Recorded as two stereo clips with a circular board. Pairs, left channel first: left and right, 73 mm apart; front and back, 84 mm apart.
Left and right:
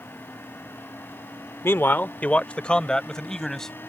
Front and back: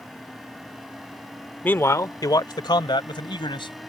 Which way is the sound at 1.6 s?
60° left.